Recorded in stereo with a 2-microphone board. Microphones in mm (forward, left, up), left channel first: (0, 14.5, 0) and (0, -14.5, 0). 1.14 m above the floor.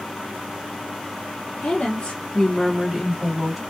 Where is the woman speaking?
60° left (ahead or behind), 0.8 m; by 3.6 s 20° right (ahead or behind), 1.5 m.